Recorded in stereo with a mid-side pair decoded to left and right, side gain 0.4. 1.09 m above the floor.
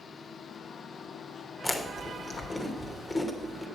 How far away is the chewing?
About 2.5 m.